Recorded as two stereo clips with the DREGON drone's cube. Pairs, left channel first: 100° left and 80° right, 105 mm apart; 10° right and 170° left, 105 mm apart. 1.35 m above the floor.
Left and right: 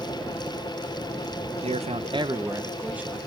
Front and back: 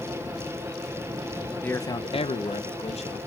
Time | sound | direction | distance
1.6 | a man speaking | 90° right | 0.7 m